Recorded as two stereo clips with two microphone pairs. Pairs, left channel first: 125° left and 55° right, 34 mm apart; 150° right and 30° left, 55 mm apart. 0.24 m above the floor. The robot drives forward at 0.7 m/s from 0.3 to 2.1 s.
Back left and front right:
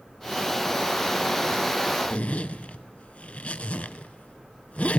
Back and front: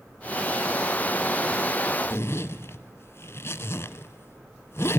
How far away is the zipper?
About 0.6 m.